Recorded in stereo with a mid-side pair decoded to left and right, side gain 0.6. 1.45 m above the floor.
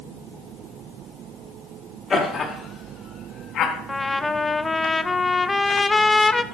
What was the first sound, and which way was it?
Laughter, 25° left.